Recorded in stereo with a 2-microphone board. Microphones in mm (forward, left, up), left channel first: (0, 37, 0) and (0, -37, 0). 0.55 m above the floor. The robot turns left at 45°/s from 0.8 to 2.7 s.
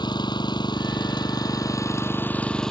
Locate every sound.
0.0 s an engine running: 95° left; by 2.7 s 10° left